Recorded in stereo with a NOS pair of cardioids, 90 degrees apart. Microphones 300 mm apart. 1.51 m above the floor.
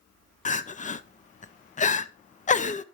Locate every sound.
0.5 s crying: 25° left, 0.6 m